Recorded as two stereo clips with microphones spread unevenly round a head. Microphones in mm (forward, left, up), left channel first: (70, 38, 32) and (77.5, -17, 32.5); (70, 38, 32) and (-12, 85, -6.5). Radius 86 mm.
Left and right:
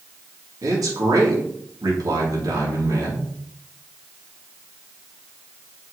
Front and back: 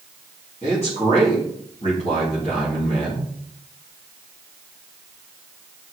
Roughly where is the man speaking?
Right.